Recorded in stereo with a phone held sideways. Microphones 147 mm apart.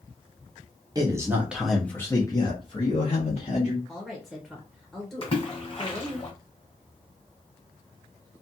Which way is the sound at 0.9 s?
25° right (ahead or behind).